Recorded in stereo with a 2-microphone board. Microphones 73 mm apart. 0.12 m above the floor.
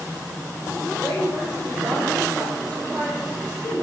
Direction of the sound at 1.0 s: Centre (ahead or behind).